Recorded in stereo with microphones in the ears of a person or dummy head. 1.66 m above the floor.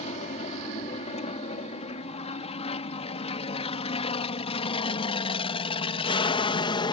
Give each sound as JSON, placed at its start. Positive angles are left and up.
{"t": 0.0, "sound": "an aircraft", "side_deg": 35}